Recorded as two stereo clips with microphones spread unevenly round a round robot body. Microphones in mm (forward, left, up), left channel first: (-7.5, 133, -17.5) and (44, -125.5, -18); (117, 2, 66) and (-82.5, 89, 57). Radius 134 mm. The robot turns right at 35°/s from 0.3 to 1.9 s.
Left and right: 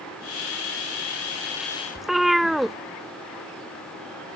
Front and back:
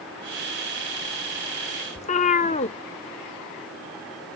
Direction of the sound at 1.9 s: 10° left.